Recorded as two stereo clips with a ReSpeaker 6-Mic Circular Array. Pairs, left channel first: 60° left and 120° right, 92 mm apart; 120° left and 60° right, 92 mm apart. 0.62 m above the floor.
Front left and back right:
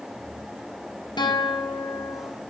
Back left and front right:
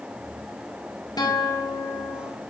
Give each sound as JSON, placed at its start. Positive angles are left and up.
{"t": 1.2, "sound": "a guitar", "azimuth_deg": 85, "distance_m": 1.1}